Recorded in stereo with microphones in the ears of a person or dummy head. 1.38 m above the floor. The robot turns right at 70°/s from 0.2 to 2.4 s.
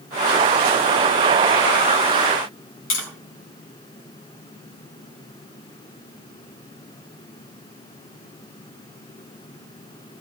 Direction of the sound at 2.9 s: 80° left.